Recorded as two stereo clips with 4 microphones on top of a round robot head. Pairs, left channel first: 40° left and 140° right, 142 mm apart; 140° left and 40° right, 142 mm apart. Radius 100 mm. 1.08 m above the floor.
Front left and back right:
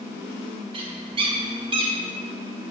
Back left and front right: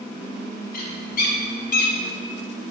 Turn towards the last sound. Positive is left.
turn(degrees=165)